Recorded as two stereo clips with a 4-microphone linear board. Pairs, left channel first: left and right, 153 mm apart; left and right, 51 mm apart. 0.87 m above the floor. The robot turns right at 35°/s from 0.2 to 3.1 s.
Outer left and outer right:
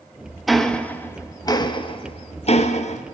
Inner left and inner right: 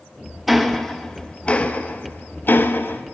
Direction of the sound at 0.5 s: Centre (ahead or behind).